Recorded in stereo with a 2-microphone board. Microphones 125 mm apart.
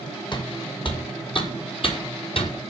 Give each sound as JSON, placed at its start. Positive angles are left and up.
{"t": 0.3, "sound": "footsteps", "side_deg": 40, "distance_m": 5.5}